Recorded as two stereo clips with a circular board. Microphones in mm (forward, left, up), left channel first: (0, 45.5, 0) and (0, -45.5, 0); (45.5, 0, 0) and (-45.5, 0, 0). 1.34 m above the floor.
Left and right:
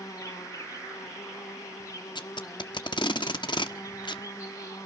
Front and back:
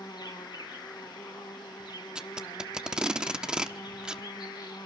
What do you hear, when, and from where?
0.0 s an insect: 35° left, 3 m
2.1 s tape being pulled: 100° left, 1.2 m